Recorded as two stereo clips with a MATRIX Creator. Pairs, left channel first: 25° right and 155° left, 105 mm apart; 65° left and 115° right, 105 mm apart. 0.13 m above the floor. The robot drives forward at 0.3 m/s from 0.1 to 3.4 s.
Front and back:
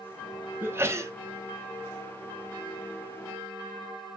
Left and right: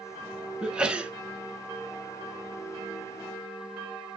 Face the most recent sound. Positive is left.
turn(degrees=180)